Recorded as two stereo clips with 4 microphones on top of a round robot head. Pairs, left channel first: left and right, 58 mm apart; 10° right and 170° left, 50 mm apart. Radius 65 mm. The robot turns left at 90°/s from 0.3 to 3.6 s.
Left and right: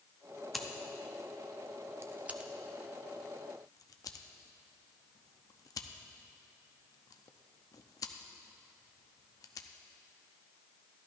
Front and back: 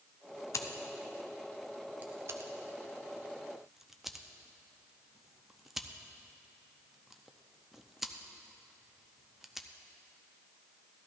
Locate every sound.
0.5 s scissors: straight ahead, 0.7 m; by 9.7 s 85° left, 0.7 m